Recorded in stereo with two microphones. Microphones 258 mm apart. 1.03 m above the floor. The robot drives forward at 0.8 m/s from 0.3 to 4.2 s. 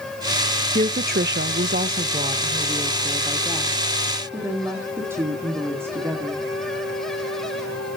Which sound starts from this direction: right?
A woman speaking, at 0.8 s.